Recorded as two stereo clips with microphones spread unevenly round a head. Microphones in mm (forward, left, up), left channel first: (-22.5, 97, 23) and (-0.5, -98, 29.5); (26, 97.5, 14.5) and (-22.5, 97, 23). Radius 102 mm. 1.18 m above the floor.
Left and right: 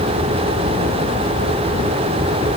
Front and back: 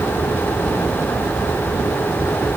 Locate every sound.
Only background noise.